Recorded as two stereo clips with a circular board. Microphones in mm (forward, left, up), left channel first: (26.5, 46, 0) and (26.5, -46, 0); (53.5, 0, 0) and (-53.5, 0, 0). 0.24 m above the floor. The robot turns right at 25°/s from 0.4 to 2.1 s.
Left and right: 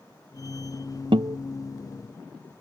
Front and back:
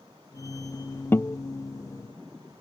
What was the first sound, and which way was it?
A guitar, 70° right.